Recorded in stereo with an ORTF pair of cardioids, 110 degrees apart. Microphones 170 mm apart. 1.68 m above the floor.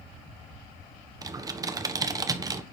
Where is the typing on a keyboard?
20° right, 1.2 m.